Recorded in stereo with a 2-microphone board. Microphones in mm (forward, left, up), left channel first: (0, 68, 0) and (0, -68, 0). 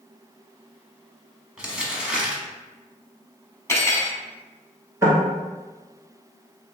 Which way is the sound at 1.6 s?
5° right (ahead or behind).